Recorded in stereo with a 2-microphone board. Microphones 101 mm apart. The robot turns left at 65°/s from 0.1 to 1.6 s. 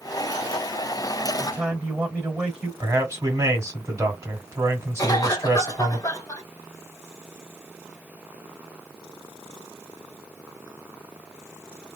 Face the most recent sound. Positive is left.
turn(degrees=35)  # may be behind; listen again after turning